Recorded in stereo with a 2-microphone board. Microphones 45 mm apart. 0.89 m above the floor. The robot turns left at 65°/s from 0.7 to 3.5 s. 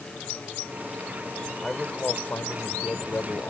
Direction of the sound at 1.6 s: 170° left.